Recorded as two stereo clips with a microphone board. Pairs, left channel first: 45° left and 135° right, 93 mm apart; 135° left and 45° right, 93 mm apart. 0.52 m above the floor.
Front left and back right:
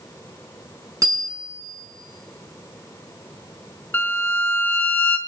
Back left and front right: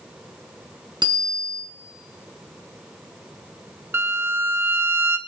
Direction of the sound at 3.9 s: 5° right.